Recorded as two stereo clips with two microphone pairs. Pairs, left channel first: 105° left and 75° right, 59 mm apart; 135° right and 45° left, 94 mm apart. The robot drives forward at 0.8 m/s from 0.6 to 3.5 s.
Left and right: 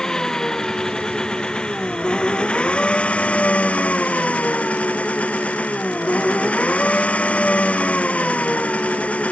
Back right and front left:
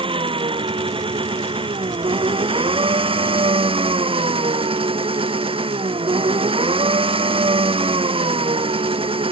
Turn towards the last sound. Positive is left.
turn(degrees=40)